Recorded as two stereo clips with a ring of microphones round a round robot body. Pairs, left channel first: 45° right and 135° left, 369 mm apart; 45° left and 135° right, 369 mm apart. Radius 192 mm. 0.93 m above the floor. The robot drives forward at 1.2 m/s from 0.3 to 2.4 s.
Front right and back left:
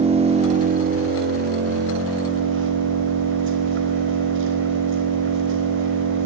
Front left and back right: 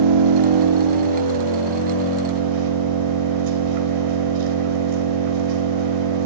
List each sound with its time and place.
0.0 s an engine running: 150° right, 2 m; by 6.3 s 165° right, 4.5 m